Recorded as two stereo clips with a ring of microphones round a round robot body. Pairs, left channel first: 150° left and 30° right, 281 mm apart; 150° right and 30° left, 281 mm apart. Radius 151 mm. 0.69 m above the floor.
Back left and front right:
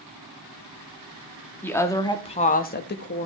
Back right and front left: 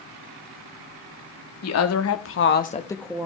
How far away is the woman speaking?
About 1.5 m.